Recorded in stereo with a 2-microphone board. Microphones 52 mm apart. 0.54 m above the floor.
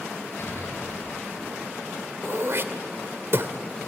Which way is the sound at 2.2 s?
55° right (ahead or behind).